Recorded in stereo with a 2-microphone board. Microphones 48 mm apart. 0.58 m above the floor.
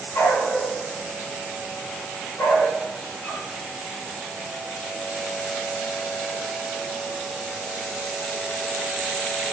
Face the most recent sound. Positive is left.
turn(degrees=90)